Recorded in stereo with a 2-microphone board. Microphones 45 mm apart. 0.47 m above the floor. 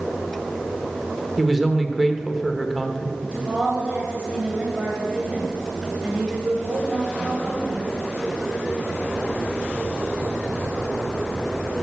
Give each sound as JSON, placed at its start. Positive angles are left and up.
{"t": 1.4, "sound": "a man speaking", "side_deg": -5, "distance_m": 1.0}
{"t": 3.2, "sound": "a woman speaking", "side_deg": -20, "distance_m": 2.0}